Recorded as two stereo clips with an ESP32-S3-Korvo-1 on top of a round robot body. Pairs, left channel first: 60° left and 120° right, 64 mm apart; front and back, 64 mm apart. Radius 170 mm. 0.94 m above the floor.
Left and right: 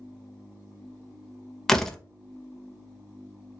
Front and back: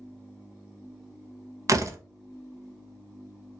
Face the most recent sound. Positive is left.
turn(degrees=145)